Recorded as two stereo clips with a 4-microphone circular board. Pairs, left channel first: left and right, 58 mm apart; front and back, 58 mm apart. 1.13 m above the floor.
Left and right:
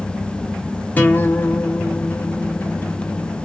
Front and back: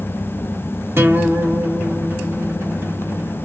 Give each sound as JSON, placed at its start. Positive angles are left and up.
{"t": 1.0, "sound": "a guitar", "azimuth_deg": 140, "distance_m": 0.7}